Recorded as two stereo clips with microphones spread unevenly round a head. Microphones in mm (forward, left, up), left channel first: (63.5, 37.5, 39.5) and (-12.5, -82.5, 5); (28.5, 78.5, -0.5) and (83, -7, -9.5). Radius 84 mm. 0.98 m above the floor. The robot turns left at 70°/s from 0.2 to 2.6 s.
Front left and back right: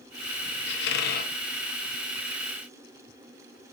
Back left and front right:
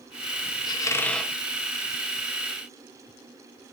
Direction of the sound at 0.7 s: 75° left.